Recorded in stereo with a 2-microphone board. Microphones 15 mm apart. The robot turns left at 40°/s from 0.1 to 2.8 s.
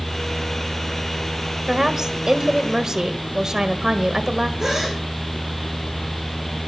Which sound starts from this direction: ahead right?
A woman speaking, at 1.7 s.